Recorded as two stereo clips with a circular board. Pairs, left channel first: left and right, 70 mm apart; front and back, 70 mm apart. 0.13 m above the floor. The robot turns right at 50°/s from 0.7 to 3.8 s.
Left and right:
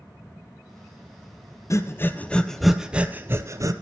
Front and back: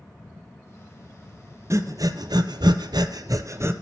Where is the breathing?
135° left, 0.6 m; by 3.7 s 125° right, 0.6 m.